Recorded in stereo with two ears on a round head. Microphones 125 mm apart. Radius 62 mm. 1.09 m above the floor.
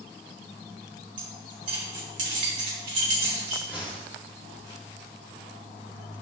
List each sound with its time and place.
1.2 s keys jangling: 60° right (ahead or behind), 3 m
3.7 s a whoosh: 15° right (ahead or behind), 2 m